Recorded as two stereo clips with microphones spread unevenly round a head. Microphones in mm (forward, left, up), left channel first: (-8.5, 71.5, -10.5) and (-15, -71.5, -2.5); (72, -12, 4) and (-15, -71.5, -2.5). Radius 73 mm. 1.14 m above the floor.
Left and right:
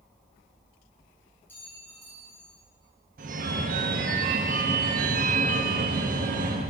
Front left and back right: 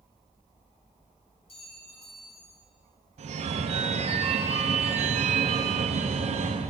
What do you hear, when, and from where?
1.5 s a clink: 10° left, 3 m
3.2 s a phone ringing: 125° right, 0.6 m